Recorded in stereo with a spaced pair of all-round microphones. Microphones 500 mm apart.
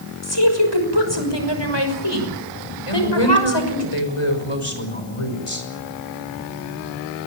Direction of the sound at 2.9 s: 85° left.